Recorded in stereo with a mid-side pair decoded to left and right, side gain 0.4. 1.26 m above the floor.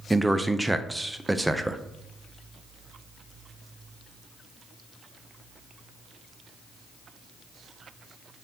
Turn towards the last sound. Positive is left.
turn(degrees=-10)